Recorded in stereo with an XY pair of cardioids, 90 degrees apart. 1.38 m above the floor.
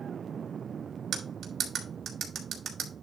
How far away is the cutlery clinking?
About 3.5 m.